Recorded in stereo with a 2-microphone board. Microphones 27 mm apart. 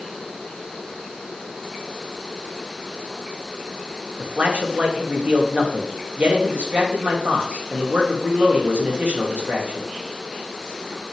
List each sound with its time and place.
4.2 s a man speaking: 60° right (ahead or behind), 2.5 m